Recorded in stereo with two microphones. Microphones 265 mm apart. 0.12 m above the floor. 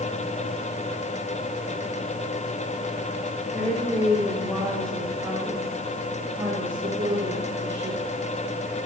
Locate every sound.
3.5 s a woman speaking: 20° left (ahead or behind), 5.5 m; by 8.1 s 50° right (ahead or behind), 5 m